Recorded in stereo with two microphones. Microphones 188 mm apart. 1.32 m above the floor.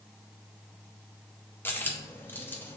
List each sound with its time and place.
1.6 s a dropped coin: 10° left (ahead or behind), 0.6 m